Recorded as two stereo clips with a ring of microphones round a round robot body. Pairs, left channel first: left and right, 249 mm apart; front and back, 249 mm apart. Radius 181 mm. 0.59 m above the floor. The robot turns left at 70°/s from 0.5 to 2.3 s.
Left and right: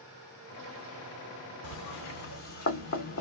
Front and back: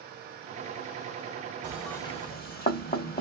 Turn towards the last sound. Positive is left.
turn(degrees=60)